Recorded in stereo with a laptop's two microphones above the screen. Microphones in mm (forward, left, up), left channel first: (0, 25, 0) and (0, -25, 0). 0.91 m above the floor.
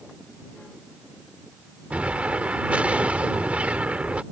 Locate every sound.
1.9 s an explosion: 25° right (ahead or behind)